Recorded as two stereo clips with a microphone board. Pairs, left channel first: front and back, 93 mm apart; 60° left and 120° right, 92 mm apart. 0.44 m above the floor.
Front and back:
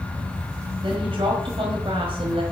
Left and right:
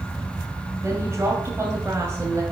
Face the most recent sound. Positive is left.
turn(degrees=180)